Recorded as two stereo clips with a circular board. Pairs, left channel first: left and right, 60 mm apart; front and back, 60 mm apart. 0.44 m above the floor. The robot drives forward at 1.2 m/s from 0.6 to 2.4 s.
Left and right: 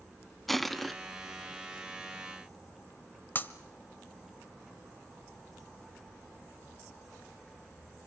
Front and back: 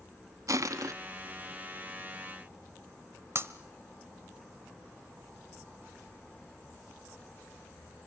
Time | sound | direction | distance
0.5 | crushing | straight behind | 0.6 m
3.4 | breaking glass | 145° left | 1.2 m